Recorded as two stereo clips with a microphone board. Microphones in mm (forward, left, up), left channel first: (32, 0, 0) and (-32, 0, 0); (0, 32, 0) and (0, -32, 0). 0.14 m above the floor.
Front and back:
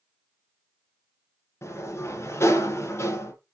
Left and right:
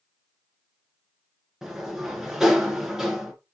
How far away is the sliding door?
About 2 m.